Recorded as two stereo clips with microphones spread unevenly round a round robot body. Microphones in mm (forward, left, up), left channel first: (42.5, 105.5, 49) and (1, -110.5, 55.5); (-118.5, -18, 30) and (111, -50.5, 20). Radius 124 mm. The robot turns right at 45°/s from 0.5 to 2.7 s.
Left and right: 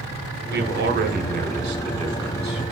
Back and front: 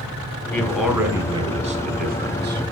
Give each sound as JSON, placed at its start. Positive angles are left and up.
{"t": 0.5, "sound": "a man speaking", "azimuth_deg": -100, "distance_m": 2.0}